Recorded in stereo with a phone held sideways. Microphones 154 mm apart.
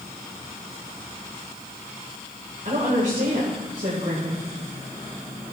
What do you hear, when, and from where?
2.6 s a woman speaking: 55° right (ahead or behind), 3 m